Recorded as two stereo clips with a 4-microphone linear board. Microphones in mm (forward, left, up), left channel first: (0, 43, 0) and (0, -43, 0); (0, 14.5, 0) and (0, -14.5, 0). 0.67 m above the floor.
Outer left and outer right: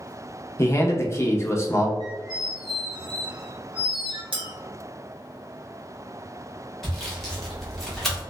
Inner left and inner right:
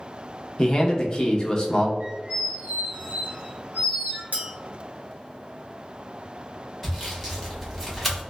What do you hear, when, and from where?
0.6 s a man speaking: 35° left (ahead or behind), 0.6 m
2.0 s a squeak: 70° right (ahead or behind), 1.1 m
4.3 s a clink: 80° right, 0.9 m
6.8 s sawing: 5° left (ahead or behind), 0.9 m